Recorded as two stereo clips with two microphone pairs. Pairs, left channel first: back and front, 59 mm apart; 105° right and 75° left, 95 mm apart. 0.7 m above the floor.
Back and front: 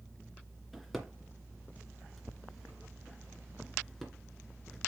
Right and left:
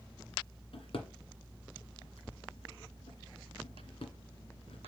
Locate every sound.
0.7 s a drawer: 90° right, 2 m